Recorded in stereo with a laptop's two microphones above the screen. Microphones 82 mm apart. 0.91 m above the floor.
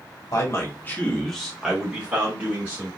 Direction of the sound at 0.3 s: 45° left (ahead or behind).